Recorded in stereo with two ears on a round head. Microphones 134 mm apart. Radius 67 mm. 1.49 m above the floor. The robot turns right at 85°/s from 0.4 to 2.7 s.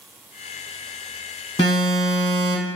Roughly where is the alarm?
Behind left.